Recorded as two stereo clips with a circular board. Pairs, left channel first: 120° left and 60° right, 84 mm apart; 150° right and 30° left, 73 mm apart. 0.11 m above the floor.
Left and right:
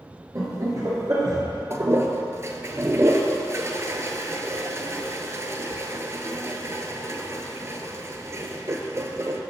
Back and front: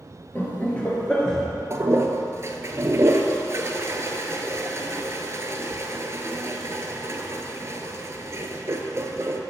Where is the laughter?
95° right, 2.0 m; by 1.4 s 70° right, 1.6 m.